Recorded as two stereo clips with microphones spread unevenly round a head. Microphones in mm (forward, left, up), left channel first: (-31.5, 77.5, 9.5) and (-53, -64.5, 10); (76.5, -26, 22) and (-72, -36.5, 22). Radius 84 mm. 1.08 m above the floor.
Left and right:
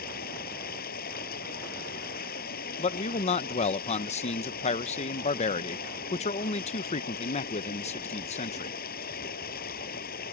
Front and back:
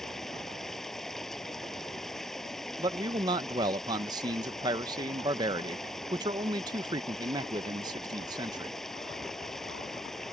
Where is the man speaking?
120° left.